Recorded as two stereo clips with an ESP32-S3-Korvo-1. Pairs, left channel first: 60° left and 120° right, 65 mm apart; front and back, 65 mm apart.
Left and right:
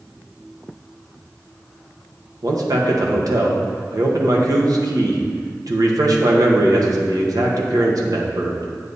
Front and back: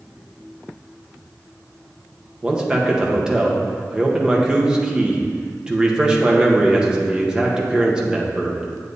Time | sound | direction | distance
2.4 | a man speaking | 100° right | 1.4 m